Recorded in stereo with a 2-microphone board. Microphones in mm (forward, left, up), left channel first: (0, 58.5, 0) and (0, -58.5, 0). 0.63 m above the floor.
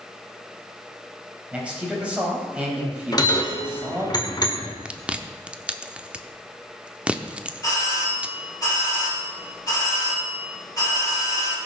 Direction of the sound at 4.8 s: 10° right (ahead or behind).